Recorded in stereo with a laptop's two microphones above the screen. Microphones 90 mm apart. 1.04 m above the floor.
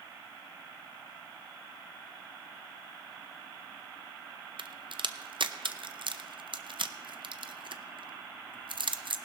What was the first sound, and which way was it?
A crack, 65° right (ahead or behind).